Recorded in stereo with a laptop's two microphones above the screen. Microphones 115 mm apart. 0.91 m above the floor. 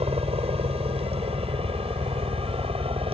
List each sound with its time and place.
0.0 s a helicopter: 60° right (ahead or behind); by 3.1 s 55° right (ahead or behind)